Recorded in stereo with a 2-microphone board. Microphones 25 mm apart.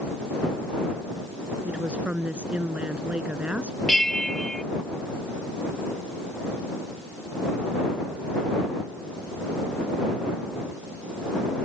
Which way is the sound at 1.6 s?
55° right (ahead or behind).